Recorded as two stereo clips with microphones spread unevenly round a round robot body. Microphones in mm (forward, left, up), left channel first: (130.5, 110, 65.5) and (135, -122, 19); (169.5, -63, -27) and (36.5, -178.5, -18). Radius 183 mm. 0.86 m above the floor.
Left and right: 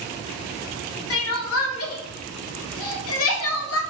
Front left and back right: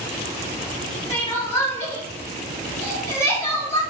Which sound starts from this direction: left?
Crying, at 1.1 s.